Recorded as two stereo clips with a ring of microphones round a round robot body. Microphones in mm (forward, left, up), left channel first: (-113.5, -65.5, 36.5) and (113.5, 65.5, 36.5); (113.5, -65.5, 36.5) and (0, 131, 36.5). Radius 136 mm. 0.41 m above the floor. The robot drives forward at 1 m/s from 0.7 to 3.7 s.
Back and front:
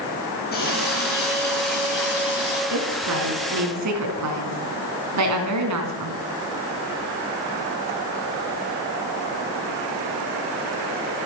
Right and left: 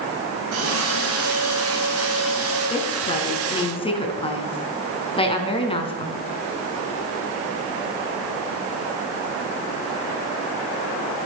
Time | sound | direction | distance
0.5 | a running tap | 155° left | 5.5 m
2.7 | a woman speaking | 5° left | 5 m